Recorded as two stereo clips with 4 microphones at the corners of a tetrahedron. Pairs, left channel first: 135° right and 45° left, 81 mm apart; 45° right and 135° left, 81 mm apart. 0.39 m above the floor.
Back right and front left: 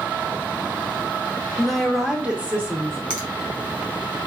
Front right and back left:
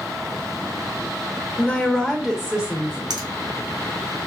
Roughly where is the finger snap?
Behind left.